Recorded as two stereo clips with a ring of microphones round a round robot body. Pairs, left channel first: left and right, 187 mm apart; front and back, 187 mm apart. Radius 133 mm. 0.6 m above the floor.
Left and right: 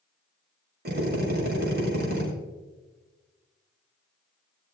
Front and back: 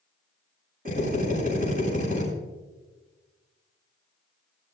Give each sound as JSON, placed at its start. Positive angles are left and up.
{"t": 0.8, "sound": "a drill", "azimuth_deg": -120, "distance_m": 6.5}